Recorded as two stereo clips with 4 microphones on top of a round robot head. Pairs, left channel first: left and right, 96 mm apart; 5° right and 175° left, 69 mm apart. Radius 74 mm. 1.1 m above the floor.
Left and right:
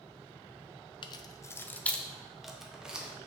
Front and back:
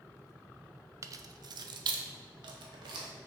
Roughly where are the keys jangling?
Behind left.